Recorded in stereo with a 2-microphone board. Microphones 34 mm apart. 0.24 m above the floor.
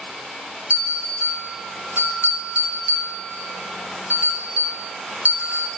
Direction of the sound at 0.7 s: 65° right (ahead or behind).